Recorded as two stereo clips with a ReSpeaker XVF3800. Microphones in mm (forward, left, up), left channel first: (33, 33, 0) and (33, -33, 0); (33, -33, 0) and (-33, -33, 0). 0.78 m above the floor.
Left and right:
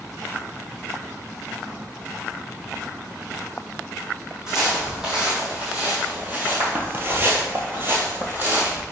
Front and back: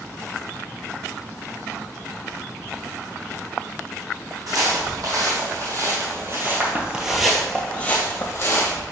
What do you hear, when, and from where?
4.5 s footsteps: 170° right, 1.9 m; by 8.8 s 30° right, 1.4 m